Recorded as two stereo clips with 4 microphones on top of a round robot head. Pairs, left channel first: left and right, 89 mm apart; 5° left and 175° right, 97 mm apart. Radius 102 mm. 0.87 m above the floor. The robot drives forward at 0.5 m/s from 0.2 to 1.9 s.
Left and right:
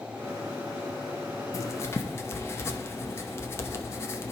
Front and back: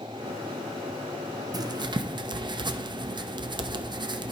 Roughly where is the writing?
Behind left.